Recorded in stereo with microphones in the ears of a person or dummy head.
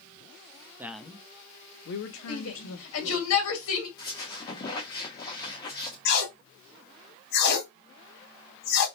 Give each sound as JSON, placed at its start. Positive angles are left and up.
{"t": 0.8, "sound": "a man speaking", "side_deg": -10, "distance_m": 0.6}
{"t": 2.3, "sound": "a shout", "side_deg": 80, "distance_m": 1.9}
{"t": 4.0, "sound": "a squeak", "side_deg": 20, "distance_m": 1.1}
{"t": 6.0, "sound": "tape being pulled", "side_deg": 60, "distance_m": 1.5}